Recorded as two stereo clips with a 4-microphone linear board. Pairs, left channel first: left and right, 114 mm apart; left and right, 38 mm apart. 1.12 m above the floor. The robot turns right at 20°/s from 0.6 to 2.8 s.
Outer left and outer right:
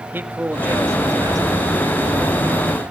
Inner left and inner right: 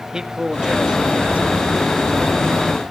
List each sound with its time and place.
0.1 s a man speaking: 15° right (ahead or behind), 1.8 m; by 1.7 s 40° right (ahead or behind), 1.8 m